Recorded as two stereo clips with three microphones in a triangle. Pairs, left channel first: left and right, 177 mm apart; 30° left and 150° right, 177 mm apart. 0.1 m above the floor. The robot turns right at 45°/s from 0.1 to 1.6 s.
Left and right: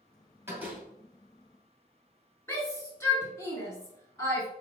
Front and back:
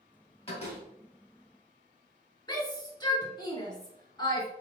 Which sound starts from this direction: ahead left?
A shout, at 2.5 s.